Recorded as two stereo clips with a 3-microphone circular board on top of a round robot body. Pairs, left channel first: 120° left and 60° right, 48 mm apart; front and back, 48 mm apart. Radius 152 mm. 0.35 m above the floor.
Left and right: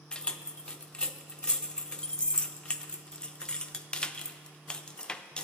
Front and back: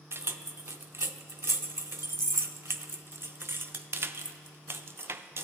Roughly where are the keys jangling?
Behind.